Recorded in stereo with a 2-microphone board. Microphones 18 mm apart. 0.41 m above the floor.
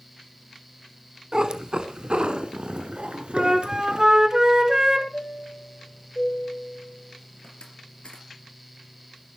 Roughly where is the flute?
Right.